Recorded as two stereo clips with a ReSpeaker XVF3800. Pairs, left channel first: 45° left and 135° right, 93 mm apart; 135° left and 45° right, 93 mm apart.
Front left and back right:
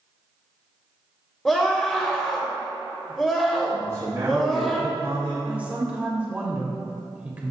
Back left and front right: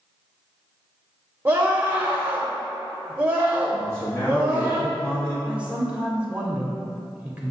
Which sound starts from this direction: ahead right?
A scream, at 1.4 s.